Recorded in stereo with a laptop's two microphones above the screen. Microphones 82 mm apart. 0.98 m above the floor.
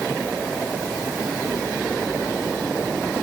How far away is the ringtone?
I don't hear a ringtone.